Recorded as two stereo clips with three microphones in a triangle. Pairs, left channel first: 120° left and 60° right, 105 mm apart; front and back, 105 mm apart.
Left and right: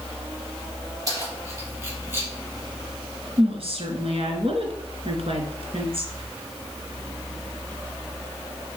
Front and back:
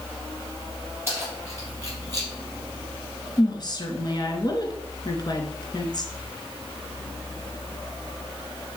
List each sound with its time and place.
1.1 s keys jangling: 115° right, 4.5 m; by 2.3 s 130° right, 5 m
3.4 s a woman speaking: 45° right, 2.5 m